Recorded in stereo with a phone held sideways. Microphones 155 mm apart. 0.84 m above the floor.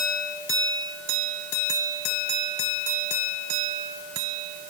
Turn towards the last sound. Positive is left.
No sound to turn to.